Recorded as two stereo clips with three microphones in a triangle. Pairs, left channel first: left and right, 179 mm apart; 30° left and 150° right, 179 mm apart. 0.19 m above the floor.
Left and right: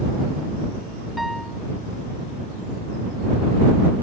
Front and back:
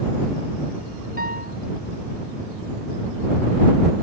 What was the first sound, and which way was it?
A piano, straight behind.